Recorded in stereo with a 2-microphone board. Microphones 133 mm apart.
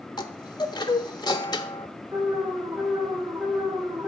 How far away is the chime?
About 1.1 m.